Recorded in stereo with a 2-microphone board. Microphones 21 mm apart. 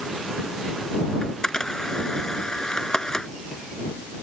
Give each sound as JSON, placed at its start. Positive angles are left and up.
{"t": 1.2, "sound": "a camera shutter", "side_deg": 30}